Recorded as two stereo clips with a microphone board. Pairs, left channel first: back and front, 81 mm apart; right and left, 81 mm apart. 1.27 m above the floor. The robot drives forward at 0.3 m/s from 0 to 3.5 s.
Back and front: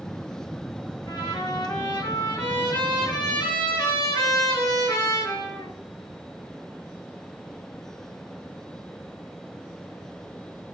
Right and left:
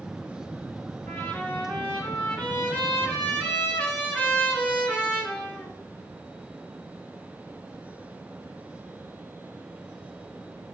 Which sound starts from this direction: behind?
A trumpet, at 1.1 s.